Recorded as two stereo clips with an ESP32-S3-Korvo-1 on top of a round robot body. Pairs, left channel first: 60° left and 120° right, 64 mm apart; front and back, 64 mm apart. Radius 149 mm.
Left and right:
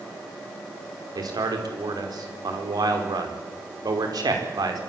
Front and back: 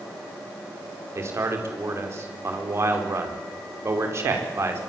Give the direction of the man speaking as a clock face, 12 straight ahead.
4 o'clock.